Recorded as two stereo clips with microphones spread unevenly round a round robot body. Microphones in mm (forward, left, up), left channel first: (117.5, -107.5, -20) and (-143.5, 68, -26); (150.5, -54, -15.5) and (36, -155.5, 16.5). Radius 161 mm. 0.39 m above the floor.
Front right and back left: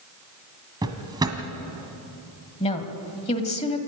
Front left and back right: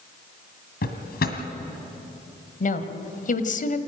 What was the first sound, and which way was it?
A drawer, 70° left.